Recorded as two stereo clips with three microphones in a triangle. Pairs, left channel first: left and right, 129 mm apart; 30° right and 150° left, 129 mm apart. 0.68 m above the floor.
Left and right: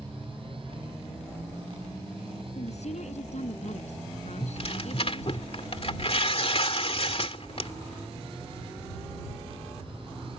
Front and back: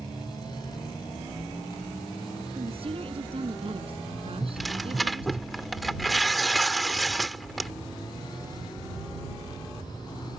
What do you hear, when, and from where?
2.5 s a woman speaking: 110° left
4.4 s tearing paper: 60° left